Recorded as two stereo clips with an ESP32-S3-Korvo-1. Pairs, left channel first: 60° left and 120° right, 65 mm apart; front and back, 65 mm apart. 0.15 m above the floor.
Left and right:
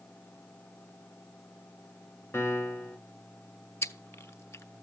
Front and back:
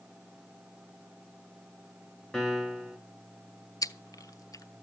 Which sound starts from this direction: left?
A piano, at 2.3 s.